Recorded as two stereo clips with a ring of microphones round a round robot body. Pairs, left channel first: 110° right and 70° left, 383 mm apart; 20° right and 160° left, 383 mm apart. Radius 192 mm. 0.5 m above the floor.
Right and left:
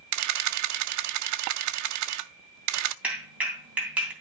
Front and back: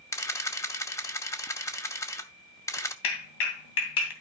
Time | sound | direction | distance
0.1 | a camera shutter | 55° left | 0.7 m
3.0 | a clap | 20° right | 2.5 m